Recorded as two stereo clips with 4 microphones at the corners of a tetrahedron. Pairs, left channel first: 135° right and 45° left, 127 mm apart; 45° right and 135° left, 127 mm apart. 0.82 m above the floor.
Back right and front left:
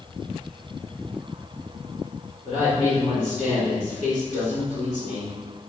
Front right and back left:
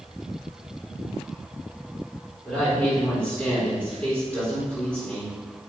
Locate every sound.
2.5 s a woman speaking: 120° right, 1.6 m